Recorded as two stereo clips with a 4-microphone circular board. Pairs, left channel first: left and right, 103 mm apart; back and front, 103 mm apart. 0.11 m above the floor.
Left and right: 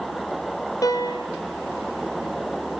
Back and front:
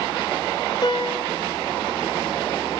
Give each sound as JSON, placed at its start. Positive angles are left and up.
{"t": 0.8, "sound": "a piano", "azimuth_deg": 140, "distance_m": 2.0}